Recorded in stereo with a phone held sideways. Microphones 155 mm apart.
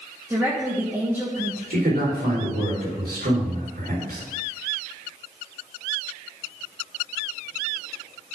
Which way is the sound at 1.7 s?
90° right.